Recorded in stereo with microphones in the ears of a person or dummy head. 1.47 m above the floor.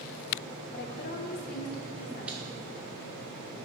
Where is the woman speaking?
50° left (ahead or behind), 0.9 m; by 2.6 s 45° left (ahead or behind), 2.5 m.